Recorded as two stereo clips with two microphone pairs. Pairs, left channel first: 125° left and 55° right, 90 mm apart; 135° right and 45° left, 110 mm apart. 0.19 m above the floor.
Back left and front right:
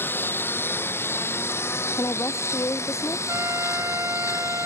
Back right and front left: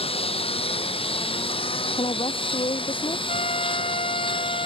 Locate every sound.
0.0 s a lawn mower: 165° right; by 4.7 s 175° right
2.0 s a woman speaking: 175° right
3.3 s a trumpet: 115° right